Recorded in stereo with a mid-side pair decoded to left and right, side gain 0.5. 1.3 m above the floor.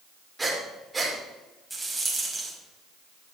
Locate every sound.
0.4 s breathing: 20° right, 5 m
1.7 s a rattle: 15° right, 5 m